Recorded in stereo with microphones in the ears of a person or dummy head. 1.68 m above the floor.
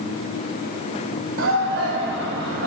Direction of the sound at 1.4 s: 75° right (ahead or behind).